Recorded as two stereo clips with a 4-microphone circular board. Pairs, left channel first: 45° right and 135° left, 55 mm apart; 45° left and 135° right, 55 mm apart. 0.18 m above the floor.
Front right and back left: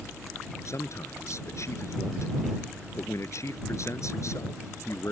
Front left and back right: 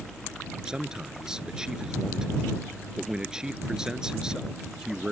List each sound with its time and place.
0.7 s a man speaking: 55° right